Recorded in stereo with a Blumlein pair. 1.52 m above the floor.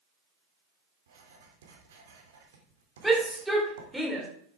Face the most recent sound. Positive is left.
turn(degrees=0)